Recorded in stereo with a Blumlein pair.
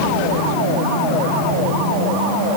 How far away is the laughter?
I don't hear laughter.